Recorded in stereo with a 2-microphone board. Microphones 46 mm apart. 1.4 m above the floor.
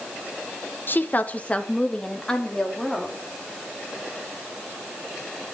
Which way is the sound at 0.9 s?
50° left (ahead or behind).